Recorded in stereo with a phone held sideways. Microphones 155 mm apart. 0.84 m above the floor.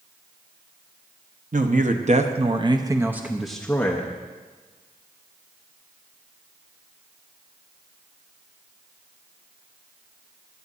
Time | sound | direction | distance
1.5 | a man speaking | 55° right (ahead or behind) | 1.0 m